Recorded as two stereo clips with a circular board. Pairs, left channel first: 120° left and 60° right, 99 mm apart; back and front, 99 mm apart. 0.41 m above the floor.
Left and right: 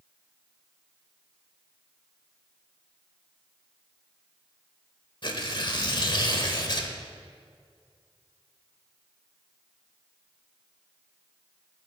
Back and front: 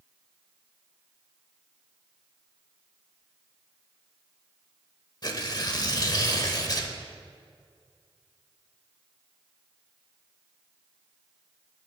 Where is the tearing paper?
145° left, 1.0 m.